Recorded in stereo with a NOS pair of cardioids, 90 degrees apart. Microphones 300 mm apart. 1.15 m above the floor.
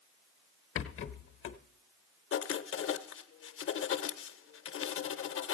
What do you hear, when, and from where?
0.8 s a rattle: 45° left, 0.7 m
2.3 s writing: 45° left, 0.7 m